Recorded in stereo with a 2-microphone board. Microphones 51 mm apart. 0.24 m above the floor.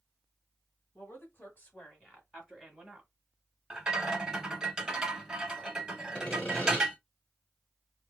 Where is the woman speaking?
50° left (ahead or behind), 1.6 m; by 3.1 s 10° right (ahead or behind), 1.3 m.